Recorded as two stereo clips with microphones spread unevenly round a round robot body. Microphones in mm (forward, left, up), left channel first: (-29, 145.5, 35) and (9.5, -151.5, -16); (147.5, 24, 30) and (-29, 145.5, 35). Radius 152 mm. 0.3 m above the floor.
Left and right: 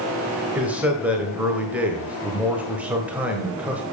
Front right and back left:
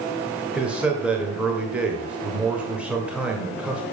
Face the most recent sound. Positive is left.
turn(degrees=-135)